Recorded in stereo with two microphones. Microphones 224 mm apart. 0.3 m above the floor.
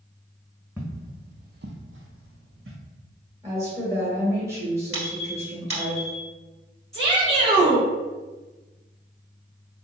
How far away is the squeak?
About 1.6 m.